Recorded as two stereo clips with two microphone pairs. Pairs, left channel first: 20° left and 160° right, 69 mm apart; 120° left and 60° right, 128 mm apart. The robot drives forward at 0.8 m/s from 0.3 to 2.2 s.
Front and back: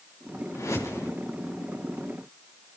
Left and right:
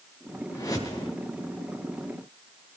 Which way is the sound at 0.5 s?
55° left.